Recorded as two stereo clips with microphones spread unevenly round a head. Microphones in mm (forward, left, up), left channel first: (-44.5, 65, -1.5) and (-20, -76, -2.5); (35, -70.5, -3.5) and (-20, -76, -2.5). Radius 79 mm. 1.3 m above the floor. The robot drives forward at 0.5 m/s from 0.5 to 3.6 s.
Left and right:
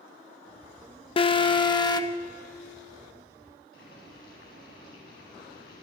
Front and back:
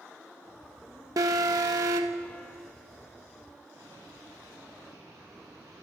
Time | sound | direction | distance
1.2 | an alarm | 155° left | 0.9 m
3.7 | boiling | 115° left | 9 m